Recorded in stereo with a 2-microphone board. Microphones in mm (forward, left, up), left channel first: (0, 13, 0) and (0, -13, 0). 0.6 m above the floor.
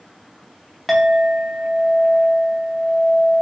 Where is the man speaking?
I don't hear a man speaking.